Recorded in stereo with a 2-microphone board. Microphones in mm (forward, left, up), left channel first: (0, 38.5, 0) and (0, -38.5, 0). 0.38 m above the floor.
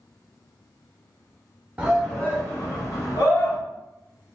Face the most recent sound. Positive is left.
turn(degrees=65)  # may be behind; listen again after turning